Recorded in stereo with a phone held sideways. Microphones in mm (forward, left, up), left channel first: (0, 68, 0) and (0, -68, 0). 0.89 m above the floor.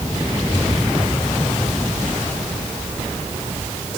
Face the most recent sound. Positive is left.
No sound to turn to.